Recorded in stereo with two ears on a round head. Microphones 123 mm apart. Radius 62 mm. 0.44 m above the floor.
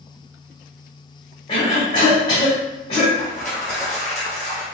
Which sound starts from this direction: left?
A cough, at 1.5 s.